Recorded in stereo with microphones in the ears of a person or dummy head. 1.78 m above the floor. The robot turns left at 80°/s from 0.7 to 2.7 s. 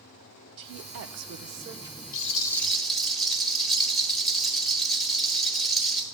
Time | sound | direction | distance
0.6 | a woman speaking | 70° right | 0.7 m
2.1 | a rattle | 45° left | 1.1 m